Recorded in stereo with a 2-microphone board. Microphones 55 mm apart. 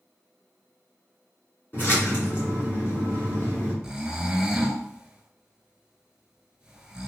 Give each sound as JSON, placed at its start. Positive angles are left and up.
{"t": 1.7, "sound": "a splash", "side_deg": 35, "distance_m": 1.8}
{"t": 3.8, "sound": "snoring", "side_deg": -15, "distance_m": 0.5}